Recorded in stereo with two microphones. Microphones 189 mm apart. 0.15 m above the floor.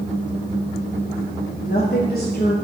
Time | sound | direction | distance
1.6 | a woman speaking | 55° left (ahead or behind) | 2.5 m